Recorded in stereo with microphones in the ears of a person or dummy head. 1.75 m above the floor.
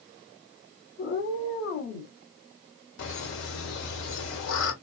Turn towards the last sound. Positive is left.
turn(degrees=60)  # may be behind; listen again after turning